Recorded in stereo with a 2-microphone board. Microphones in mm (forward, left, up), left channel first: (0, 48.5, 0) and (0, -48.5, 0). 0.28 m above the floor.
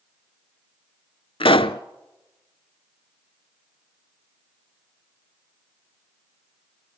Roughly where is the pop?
Left.